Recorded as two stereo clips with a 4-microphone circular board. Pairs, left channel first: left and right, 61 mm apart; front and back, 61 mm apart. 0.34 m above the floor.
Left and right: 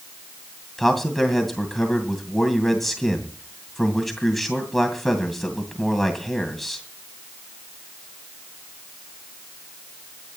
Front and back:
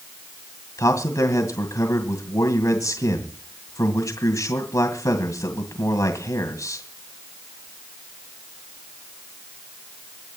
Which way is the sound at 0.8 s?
5° left.